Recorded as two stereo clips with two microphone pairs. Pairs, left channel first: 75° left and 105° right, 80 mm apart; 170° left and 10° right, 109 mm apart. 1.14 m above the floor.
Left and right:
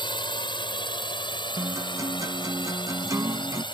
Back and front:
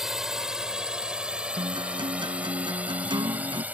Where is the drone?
75° left; by 3.7 s 65° left.